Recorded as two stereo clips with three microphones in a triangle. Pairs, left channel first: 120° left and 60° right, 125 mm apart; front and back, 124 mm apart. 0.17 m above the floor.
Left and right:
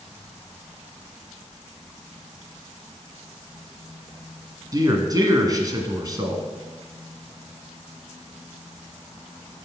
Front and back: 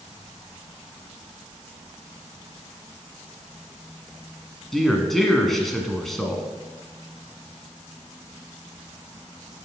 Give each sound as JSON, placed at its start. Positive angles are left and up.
{"t": 4.7, "sound": "a man speaking", "azimuth_deg": -85, "distance_m": 1.6}